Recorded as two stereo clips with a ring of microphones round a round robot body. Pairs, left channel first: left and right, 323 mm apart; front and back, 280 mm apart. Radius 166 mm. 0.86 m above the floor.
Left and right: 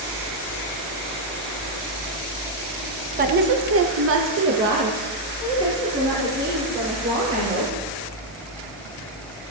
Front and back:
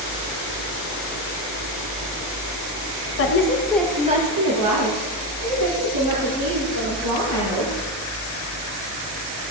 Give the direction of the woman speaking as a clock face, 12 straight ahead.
1 o'clock.